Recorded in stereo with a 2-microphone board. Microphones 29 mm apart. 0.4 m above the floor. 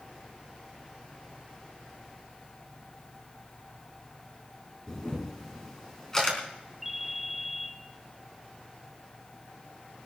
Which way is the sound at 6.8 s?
10° right (ahead or behind).